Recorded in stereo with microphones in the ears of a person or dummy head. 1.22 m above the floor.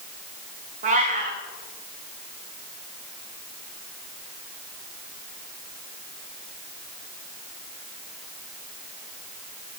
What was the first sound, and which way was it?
A cat meowing, 30° right (ahead or behind).